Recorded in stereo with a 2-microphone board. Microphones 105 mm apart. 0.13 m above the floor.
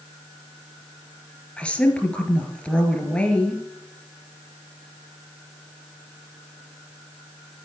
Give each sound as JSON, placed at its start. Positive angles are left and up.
{"t": 1.6, "sound": "a woman speaking", "side_deg": 10, "distance_m": 2.5}